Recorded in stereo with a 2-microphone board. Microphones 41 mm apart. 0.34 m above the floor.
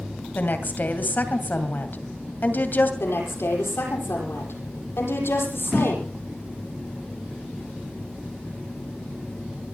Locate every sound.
0.3 s a woman speaking: 55° left (ahead or behind), 2.5 m
3.0 s a woman speaking: 80° left, 9 m